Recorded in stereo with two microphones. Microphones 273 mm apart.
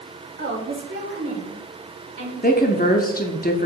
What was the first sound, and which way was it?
A woman speaking, 40° right (ahead or behind).